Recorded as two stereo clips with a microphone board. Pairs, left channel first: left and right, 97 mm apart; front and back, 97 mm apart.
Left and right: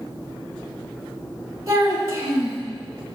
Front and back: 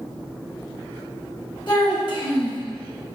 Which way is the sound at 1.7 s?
35° right.